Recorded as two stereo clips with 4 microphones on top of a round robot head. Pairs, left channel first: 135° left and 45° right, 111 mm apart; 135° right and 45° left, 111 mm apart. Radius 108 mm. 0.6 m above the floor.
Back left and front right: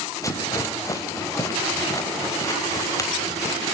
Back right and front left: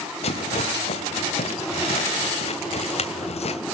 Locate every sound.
0.2 s a rattle: 160° right, 3 m